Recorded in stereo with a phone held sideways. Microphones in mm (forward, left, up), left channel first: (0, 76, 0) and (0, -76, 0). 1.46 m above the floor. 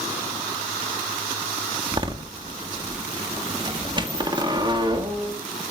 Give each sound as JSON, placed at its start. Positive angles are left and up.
{"t": 1.9, "sound": "a door slam", "side_deg": -30, "distance_m": 1.7}